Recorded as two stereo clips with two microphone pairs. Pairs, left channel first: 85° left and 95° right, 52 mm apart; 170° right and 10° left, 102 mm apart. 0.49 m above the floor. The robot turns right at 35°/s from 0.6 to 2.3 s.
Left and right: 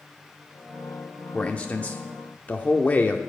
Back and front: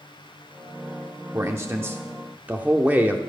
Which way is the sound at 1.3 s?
35° left.